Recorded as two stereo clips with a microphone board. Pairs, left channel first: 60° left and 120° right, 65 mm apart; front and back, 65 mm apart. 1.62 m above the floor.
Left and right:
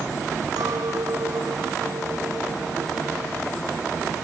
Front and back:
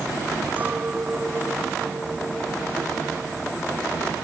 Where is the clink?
115° right.